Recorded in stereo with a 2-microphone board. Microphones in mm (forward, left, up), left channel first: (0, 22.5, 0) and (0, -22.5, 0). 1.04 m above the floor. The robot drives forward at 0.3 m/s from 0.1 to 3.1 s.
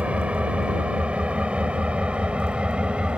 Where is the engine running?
30° right (ahead or behind); by 3.2 s 25° right (ahead or behind).